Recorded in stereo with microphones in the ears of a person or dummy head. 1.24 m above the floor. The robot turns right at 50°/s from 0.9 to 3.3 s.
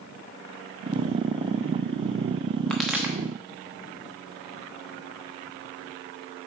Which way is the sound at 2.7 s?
10° left (ahead or behind).